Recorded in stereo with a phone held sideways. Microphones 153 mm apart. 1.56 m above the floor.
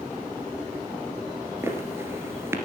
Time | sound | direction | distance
1.6 | footsteps | 15° right (ahead or behind) | 1.8 m